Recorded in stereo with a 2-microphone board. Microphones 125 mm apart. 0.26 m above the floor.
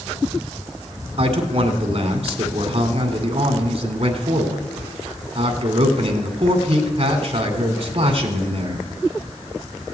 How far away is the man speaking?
About 2 m.